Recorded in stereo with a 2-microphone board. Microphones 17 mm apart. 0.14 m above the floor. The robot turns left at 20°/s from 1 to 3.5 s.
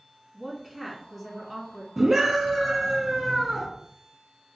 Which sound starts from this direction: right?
A scream, at 2.0 s.